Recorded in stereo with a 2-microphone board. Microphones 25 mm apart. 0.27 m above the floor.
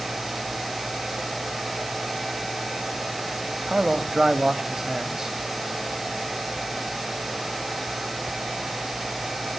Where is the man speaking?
20° right (ahead or behind), 1.2 m.